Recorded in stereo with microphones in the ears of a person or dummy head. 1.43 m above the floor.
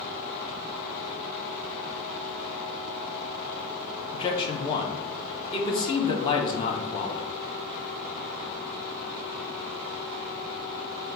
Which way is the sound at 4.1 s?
25° left (ahead or behind).